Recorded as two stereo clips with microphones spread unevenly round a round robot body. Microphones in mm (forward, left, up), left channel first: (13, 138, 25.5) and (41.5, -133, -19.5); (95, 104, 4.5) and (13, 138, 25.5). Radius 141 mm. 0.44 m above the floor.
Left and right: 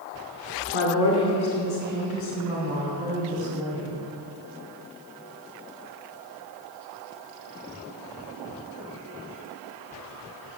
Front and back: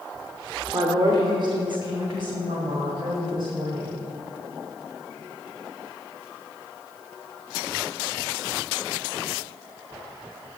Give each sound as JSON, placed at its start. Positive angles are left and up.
{"t": 0.7, "sound": "a woman speaking", "azimuth_deg": 115, "distance_m": 1.1}